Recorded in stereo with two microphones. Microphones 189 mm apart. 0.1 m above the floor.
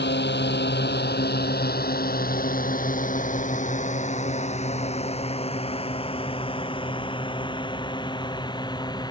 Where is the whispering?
No whispering in this recording.